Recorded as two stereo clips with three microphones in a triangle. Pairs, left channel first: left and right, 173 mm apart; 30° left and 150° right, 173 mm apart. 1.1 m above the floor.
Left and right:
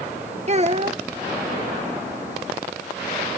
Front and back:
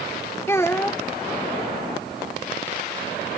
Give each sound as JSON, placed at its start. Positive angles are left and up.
{"t": 0.5, "sound": "a child speaking", "azimuth_deg": -45}